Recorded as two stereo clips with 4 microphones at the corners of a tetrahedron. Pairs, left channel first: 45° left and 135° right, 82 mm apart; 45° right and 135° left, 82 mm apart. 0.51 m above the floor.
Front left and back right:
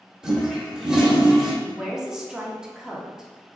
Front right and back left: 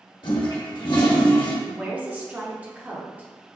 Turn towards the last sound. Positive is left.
turn(degrees=155)